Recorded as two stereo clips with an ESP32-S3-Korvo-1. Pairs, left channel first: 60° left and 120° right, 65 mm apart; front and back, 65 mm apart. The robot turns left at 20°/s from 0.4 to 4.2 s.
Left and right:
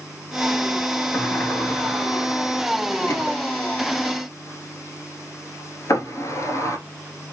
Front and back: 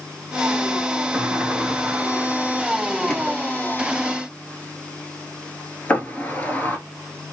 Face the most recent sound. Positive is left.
turn(degrees=55)